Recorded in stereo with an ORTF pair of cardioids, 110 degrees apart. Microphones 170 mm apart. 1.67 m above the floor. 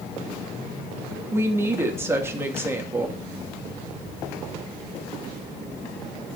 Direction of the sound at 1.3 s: 15° right.